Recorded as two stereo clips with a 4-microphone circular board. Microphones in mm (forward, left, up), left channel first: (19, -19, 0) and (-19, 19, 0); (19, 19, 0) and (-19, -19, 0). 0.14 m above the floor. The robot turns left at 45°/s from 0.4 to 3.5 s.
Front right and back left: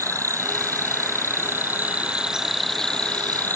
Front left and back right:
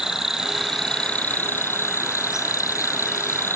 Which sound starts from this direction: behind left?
An insect, at 0.0 s.